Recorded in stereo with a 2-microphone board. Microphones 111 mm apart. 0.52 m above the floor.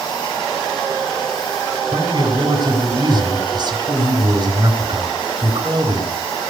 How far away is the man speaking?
About 5 m.